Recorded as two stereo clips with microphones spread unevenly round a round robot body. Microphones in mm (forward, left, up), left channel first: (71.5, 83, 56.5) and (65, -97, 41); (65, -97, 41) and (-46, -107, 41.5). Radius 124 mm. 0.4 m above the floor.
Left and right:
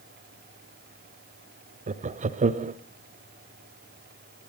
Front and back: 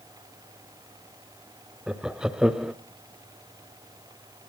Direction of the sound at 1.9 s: 95° right.